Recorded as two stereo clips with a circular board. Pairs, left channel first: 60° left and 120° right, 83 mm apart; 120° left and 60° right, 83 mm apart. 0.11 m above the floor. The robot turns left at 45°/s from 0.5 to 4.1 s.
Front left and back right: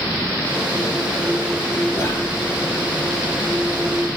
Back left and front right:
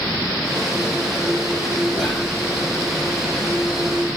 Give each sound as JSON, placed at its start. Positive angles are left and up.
{"t": 1.9, "sound": "whispering", "azimuth_deg": 45, "distance_m": 1.4}